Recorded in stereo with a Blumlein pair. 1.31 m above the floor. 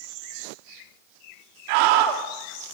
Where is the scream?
45° right, 3 m.